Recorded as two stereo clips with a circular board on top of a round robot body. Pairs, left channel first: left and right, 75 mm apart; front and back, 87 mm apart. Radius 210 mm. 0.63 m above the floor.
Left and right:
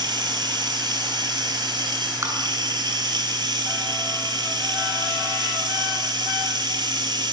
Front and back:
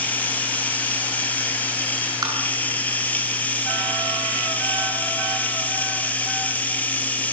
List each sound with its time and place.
0.0 s running water: 75° right, 5.5 m
2.2 s tapping: 135° right, 9 m